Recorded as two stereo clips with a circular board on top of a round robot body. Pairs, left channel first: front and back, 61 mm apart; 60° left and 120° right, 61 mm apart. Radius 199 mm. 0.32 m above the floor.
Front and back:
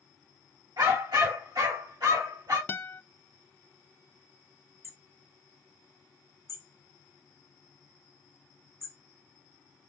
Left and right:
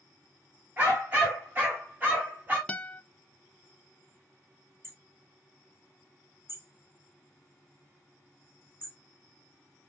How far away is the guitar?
About 0.7 m.